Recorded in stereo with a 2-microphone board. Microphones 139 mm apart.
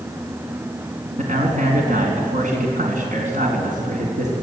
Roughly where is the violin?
No violin in this recording.